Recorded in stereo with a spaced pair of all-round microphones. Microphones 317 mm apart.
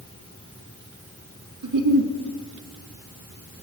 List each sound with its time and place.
1.6 s a giggle: 80° right, 0.7 m